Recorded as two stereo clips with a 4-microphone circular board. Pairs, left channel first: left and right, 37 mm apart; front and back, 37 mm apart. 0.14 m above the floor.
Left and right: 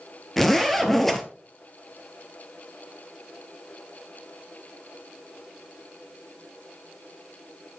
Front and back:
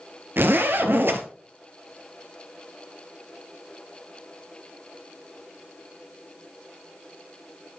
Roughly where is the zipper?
Behind.